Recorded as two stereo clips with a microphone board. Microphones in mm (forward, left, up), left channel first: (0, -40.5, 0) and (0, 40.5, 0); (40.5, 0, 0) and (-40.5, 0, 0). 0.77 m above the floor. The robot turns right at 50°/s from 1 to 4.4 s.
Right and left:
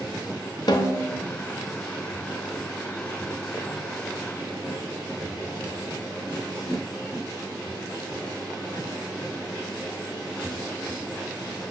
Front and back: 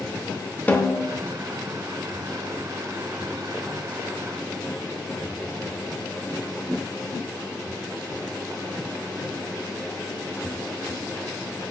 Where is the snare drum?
65° right, 0.7 m; by 1.2 s 55° right, 0.7 m.